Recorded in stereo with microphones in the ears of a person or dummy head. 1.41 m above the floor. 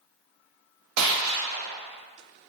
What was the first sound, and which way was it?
A gunshot, 80° right.